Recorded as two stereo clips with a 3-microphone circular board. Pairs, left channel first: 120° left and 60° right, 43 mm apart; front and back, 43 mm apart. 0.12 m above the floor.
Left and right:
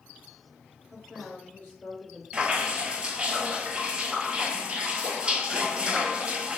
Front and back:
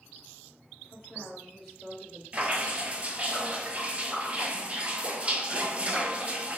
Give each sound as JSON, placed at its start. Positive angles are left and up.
{"t": 0.9, "sound": "a woman speaking", "azimuth_deg": 50, "distance_m": 1.5}
{"t": 2.3, "sound": "dripping", "azimuth_deg": -125, "distance_m": 0.6}